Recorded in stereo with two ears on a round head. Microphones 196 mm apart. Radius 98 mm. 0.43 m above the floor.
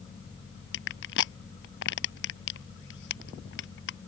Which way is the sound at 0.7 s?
60° left (ahead or behind).